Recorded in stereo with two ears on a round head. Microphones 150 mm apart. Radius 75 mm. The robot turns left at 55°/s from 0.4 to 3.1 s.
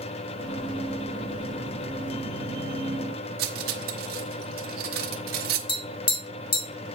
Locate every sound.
3.4 s cutlery clinking: 60° right (ahead or behind), 1.0 m
5.7 s tapping: 30° left (ahead or behind), 2 m